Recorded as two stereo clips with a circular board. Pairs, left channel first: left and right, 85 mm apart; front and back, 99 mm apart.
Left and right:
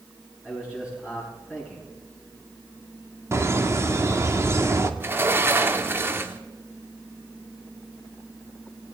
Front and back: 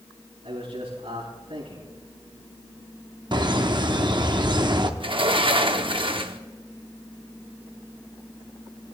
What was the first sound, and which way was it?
A man speaking, 170° right.